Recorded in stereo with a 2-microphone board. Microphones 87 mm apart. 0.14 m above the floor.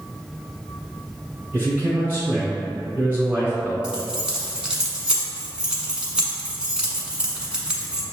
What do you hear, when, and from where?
1.5 s a man speaking: 20° right (ahead or behind), 1.5 m
3.8 s keys jangling: 10° right (ahead or behind), 0.9 m